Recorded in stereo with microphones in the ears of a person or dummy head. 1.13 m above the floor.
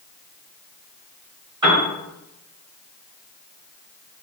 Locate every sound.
1.6 s a piano: 20° right (ahead or behind), 1.7 m